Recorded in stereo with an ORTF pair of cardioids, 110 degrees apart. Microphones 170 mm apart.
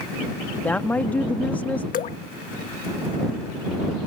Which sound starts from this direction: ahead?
A woman speaking, at 0.6 s.